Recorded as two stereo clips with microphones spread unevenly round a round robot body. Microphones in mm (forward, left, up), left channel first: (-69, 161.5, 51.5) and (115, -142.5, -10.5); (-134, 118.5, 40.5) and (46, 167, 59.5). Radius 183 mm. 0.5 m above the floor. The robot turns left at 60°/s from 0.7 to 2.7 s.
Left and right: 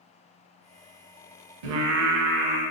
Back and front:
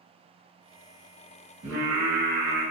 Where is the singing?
35° right, 0.6 m; by 2.6 s 95° right, 0.6 m.